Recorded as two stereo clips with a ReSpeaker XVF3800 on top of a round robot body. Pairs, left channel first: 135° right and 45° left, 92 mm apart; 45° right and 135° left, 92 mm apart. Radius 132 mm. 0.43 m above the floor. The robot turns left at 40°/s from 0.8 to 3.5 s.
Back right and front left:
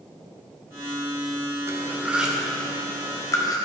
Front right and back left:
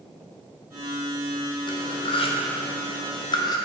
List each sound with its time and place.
1.7 s cutlery clinking: 15° right, 1.0 m; by 3.6 s 90° right, 1.0 m